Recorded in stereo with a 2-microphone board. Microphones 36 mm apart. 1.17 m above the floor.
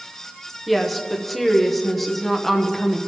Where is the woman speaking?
Centre (ahead or behind), 0.9 m.